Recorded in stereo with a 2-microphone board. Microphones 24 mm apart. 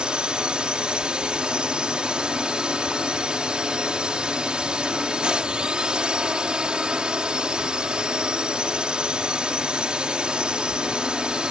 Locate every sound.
0.0 s a drone: 40° right (ahead or behind)